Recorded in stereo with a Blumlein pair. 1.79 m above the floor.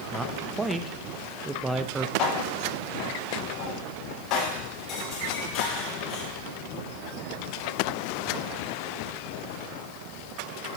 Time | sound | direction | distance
0.1 | a man speaking | 15° right | 0.6 m
2.2 | dishes clattering | 30° left | 2.5 m